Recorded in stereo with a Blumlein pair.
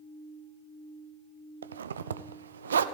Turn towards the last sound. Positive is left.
turn(degrees=-70)